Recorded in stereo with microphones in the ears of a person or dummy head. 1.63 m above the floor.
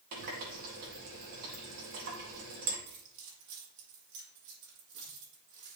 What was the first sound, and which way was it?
A running tap, 45° right (ahead or behind).